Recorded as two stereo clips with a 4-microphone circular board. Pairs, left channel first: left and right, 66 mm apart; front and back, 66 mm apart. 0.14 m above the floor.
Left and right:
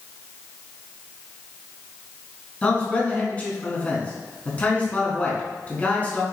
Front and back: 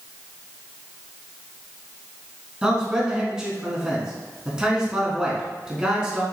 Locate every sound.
2.6 s a man speaking: 120° left, 1.2 m